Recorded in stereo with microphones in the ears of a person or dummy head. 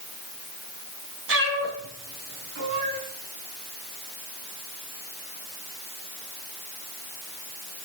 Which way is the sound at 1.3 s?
70° right (ahead or behind).